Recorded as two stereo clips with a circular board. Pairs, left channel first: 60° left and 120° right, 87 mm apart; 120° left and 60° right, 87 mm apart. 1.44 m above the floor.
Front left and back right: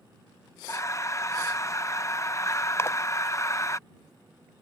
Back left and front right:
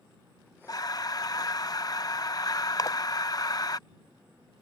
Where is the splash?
105° left.